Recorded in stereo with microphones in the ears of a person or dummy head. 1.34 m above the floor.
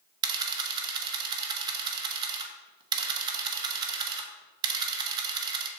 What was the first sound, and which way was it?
A camera shutter, 25° right (ahead or behind).